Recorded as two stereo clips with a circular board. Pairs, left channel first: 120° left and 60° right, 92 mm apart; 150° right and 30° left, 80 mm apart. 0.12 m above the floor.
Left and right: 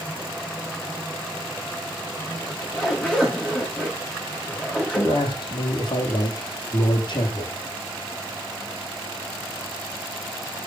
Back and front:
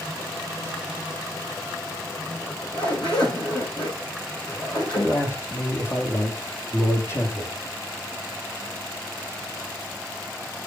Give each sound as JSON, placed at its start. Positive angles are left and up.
{"t": 2.4, "sound": "a zipper", "azimuth_deg": -165, "distance_m": 7.5}
{"t": 5.0, "sound": "a man speaking", "azimuth_deg": 155, "distance_m": 5.5}